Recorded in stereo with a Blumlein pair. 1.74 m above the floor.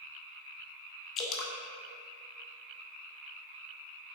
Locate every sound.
1.2 s dripping: 30° left, 0.9 m